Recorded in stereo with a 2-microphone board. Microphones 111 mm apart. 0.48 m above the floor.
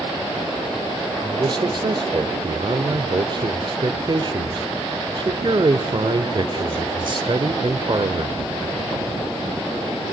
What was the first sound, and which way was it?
A man speaking, 45° right (ahead or behind).